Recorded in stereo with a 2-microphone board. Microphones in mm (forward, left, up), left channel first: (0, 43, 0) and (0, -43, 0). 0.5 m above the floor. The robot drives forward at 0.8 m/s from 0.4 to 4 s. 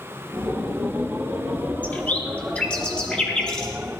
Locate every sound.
1.8 s a bird: 20° left (ahead or behind), 1.3 m; by 3.7 s 10° left (ahead or behind), 2.5 m